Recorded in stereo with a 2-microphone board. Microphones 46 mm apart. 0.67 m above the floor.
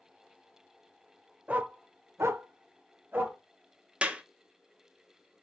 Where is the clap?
25° right (ahead or behind), 0.5 m.